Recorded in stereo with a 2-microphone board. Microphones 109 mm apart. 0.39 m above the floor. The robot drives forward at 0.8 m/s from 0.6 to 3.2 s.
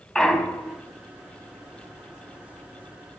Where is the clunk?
5° left (ahead or behind), 1.1 m.